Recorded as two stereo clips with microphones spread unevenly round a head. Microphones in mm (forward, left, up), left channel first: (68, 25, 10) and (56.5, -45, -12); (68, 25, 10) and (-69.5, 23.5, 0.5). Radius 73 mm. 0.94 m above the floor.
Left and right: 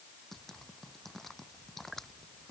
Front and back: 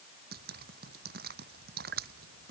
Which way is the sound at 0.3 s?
165° left.